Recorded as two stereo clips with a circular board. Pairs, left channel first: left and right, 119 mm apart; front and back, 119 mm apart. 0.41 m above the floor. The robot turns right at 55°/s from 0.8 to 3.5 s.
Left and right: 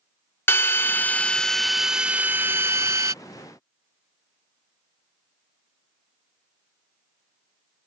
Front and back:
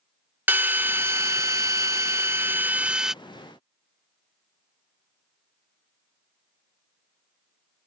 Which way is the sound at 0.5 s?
130° left.